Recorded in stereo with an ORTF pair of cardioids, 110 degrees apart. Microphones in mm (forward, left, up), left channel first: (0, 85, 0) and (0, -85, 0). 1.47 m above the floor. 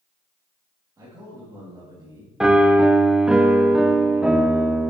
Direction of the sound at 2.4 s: 5° right.